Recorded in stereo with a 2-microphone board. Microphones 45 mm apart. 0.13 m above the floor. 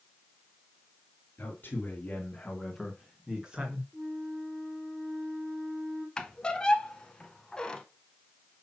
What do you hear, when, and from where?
1.4 s a man speaking: 45° left (ahead or behind), 2 m; by 3.8 s 25° right (ahead or behind), 2.0 m
3.9 s a flute: 50° right (ahead or behind), 2.5 m
6.2 s a squeak: 20° left (ahead or behind), 0.7 m